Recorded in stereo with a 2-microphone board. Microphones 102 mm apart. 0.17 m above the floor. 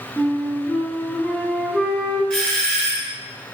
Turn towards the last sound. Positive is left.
turn(degrees=10)  # may be behind; listen again after turning